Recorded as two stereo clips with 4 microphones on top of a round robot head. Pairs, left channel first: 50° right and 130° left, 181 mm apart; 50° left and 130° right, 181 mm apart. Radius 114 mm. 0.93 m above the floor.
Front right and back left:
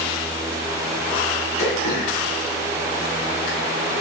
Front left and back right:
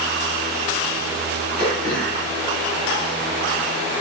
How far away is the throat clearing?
About 4 m.